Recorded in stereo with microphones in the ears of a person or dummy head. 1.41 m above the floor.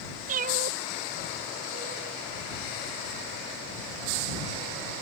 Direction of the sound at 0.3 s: 45° right (ahead or behind).